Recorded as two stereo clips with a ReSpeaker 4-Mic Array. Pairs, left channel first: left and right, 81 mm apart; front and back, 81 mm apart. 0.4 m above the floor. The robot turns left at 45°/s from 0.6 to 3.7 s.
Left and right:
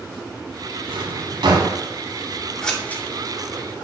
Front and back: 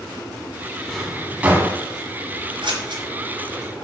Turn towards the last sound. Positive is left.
turn(degrees=125)